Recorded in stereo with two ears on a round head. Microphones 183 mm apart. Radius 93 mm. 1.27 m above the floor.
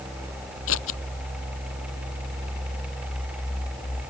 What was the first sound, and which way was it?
Scissors, 70° left (ahead or behind).